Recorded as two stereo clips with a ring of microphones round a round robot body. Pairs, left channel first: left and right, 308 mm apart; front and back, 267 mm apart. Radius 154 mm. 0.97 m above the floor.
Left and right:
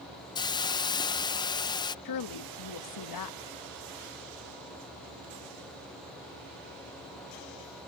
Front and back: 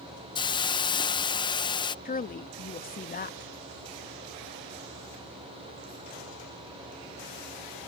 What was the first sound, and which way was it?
A hiss, 40° left.